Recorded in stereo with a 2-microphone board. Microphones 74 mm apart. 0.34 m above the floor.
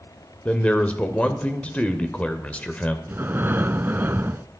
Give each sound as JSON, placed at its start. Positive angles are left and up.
{"t": 0.5, "sound": "a man speaking", "side_deg": 20, "distance_m": 1.0}
{"t": 3.1, "sound": "breathing", "side_deg": -30, "distance_m": 0.5}